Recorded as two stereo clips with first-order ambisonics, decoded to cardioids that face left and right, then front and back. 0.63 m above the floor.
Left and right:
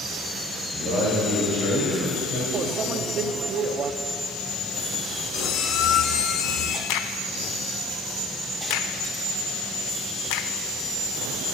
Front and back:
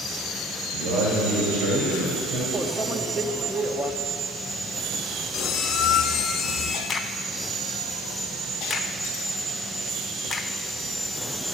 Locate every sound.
0.7 s a man speaking: 175° right, 3 m; by 2.4 s 145° left, 2.5 m
2.5 s a microwave: 110° right, 0.5 m
5.3 s a squeak: 50° left, 0.9 m
6.9 s a crack: 70° left, 0.5 m